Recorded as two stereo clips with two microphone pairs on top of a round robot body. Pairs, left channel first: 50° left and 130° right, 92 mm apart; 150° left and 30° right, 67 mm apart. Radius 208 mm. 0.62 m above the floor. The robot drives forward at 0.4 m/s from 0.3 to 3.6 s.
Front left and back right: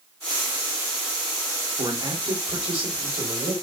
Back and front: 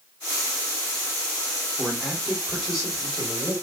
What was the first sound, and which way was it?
A man speaking, 115° right.